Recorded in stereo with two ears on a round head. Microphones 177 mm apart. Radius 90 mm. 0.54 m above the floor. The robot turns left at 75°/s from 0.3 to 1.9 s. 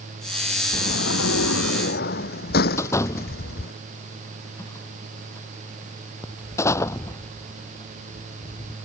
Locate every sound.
0.7 s a sliding door: 140° left; by 3.7 s 50° left
2.8 s a door slam: 15° left (ahead or behind)